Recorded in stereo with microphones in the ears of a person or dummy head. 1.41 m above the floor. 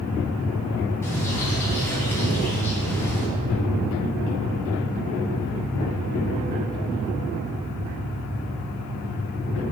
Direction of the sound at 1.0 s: 15° left (ahead or behind).